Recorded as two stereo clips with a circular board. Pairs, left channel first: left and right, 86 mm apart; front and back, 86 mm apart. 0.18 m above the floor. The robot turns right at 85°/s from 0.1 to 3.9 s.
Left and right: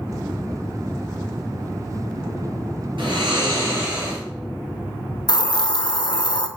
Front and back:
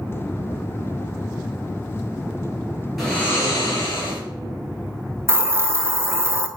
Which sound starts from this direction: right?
Snoring, at 3.0 s.